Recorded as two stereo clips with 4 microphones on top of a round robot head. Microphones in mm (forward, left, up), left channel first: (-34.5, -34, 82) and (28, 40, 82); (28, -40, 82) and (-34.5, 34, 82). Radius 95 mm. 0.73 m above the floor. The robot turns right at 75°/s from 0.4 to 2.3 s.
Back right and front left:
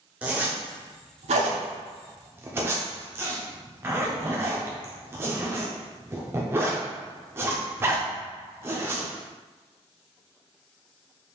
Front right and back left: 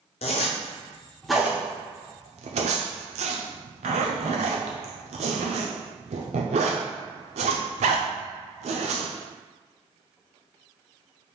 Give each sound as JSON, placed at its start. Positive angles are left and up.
{"t": 0.2, "sound": "a zipper", "azimuth_deg": -25, "distance_m": 0.5}